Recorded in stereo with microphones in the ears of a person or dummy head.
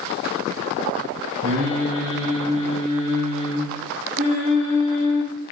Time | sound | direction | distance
1.4 | singing | 35° right (ahead or behind) | 0.7 m